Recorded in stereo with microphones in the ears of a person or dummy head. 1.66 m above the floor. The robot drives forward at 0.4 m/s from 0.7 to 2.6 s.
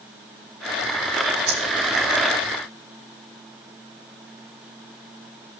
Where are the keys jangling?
80° right, 5.5 m.